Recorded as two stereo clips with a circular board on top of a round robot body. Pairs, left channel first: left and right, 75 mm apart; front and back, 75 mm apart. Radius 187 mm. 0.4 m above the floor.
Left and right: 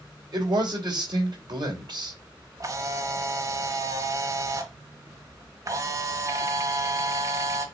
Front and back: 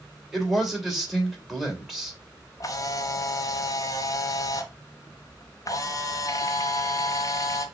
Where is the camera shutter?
45° right, 1.2 m.